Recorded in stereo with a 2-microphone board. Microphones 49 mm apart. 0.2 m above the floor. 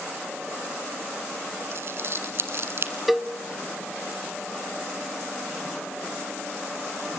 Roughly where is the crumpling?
Right.